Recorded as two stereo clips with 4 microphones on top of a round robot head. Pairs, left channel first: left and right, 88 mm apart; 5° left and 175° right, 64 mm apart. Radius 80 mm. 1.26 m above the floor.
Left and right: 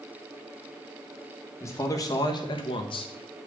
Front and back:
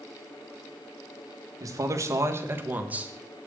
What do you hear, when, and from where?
1.6 s a man speaking: 150° left, 1.8 m; by 3.5 s 100° left, 1.7 m